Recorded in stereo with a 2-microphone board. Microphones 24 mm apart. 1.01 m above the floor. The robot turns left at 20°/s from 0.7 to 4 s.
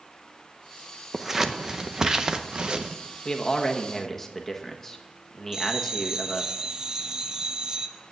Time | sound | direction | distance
1.1 | scissors | 10° right (ahead or behind) | 0.7 m
3.2 | a man speaking | 30° left (ahead or behind) | 1.2 m
5.5 | a bell | 25° right (ahead or behind) | 0.6 m